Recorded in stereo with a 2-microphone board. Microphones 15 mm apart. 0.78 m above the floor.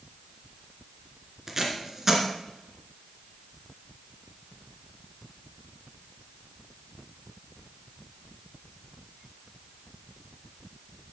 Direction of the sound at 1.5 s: 15° right (ahead or behind).